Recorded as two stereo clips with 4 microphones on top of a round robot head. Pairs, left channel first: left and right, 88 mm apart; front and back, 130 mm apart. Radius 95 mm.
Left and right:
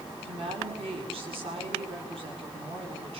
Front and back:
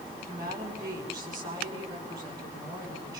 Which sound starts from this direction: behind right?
A woman speaking, at 0.2 s.